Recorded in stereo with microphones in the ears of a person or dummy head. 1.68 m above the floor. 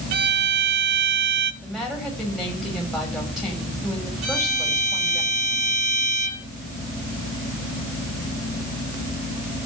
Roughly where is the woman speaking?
Centre.